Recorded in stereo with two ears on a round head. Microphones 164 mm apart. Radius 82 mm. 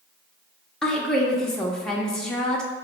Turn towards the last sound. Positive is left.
turn(degrees=5)  # may be behind; listen again after turning